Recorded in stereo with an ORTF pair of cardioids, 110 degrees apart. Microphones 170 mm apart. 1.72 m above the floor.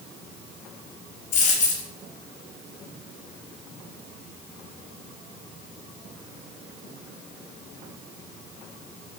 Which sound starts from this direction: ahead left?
A dropped coin, at 1.3 s.